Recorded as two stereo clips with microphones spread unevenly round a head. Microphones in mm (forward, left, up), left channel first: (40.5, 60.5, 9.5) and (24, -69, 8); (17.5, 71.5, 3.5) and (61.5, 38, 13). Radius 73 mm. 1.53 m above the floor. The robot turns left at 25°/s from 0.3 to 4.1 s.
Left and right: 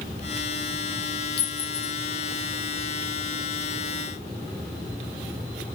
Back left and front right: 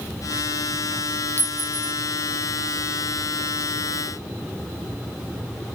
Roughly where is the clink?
Left.